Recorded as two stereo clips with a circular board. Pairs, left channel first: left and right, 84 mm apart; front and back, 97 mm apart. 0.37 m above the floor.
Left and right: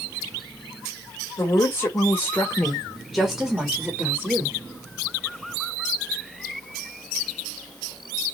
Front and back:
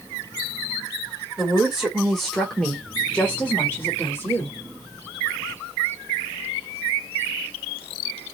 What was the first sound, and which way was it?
A woman speaking, 100° left.